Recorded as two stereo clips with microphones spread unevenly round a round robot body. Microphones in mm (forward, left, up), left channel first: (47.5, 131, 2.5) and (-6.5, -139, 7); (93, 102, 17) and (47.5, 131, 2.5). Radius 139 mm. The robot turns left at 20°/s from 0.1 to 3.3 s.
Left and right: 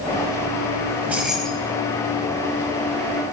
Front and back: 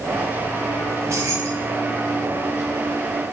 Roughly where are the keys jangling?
Behind.